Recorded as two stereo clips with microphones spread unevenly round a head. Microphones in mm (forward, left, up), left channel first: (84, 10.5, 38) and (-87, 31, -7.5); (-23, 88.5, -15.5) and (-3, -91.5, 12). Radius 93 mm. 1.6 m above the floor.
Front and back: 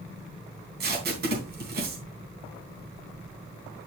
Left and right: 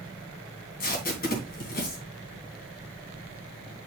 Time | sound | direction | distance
0.8 | tape being pulled | 135° left | 3 m